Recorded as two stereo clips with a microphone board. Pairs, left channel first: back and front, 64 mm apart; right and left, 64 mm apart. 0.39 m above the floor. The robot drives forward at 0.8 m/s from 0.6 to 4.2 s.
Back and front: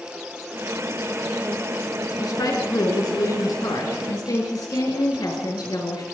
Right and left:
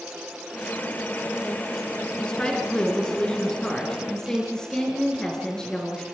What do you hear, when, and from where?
2.2 s a woman speaking: 165° right, 5 m; by 6.0 s 170° right, 6.5 m